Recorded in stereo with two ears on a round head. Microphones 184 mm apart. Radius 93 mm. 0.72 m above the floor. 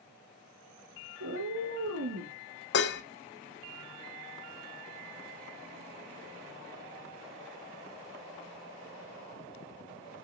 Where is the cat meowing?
75° right (ahead or behind), 1.7 m.